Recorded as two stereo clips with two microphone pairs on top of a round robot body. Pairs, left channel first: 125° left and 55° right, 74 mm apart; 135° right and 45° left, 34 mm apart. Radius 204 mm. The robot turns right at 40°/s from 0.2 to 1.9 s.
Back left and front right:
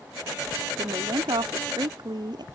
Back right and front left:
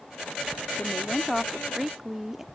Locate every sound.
0.8 s a woman speaking: 80° right; by 2.5 s 35° right